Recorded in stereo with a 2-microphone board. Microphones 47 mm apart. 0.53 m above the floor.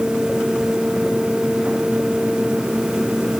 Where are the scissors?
I don't hear scissors.